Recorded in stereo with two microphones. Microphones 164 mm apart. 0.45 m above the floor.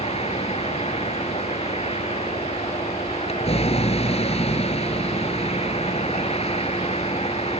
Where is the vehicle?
40° left (ahead or behind).